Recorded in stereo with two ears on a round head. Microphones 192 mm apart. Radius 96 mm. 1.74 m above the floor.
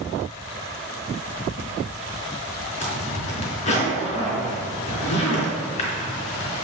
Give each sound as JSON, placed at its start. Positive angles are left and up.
{"t": 2.8, "sound": "a zipper", "side_deg": 35, "distance_m": 4.0}